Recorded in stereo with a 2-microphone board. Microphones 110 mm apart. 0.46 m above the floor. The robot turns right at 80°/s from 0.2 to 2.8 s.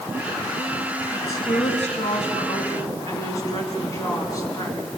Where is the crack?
I don't hear a crack.